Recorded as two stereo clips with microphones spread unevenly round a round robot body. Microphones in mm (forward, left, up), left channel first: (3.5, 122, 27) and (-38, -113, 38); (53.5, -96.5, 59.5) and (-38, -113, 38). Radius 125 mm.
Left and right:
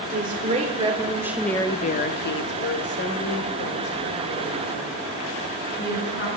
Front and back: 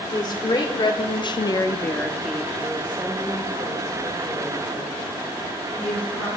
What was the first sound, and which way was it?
A woman speaking, 40° right.